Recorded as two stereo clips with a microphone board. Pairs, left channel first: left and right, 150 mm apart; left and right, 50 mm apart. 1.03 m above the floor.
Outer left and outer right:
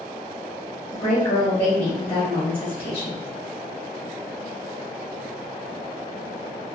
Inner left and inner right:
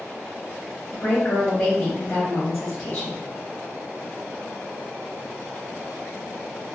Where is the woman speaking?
35° left (ahead or behind), 0.9 m.